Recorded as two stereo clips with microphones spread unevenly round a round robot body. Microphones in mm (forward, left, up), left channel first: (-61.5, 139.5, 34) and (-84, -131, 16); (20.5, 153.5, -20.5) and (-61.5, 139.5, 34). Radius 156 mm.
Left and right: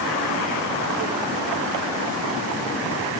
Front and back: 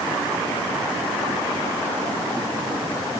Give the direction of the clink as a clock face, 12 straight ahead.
No clink in this recording.